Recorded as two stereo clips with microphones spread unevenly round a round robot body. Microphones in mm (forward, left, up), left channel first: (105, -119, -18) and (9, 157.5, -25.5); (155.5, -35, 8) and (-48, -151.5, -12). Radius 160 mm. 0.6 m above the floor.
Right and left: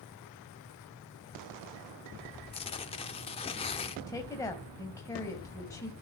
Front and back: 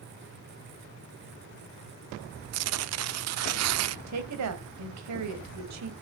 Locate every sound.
2.5 s tearing paper: 145° right, 0.7 m
4.1 s a woman speaking: 150° right, 3 m